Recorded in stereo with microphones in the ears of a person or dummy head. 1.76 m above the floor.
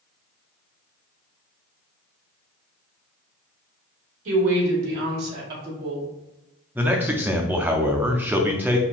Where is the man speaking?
Centre (ahead or behind), 0.5 m.